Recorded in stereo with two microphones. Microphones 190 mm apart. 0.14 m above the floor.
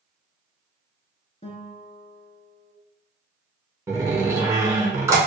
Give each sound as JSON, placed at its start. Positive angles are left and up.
{"t": 1.4, "sound": "a guitar", "side_deg": 40, "distance_m": 0.7}
{"t": 3.9, "sound": "a door slam", "side_deg": -15, "distance_m": 0.8}